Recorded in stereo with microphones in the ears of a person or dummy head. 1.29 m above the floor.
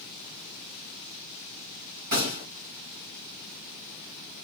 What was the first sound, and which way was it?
A gunshot, 50° right (ahead or behind).